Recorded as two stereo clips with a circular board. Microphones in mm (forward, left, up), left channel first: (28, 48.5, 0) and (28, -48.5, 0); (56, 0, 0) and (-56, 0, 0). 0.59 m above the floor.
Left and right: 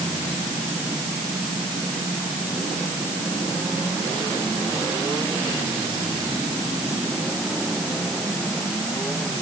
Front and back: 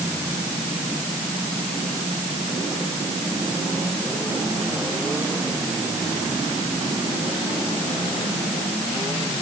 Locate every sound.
Only background noise.